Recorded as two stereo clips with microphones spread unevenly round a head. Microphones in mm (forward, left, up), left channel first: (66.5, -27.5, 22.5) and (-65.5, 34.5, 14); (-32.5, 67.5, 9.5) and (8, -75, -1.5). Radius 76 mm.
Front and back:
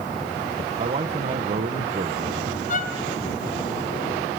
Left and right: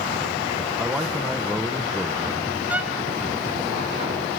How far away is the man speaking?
About 1.2 m.